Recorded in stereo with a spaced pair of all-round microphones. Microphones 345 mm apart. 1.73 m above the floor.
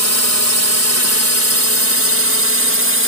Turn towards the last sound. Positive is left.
turn(degrees=-40)  # may be behind; listen again after turning